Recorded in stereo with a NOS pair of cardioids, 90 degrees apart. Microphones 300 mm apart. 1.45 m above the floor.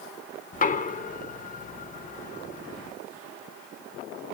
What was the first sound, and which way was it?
Knocking, 25° left.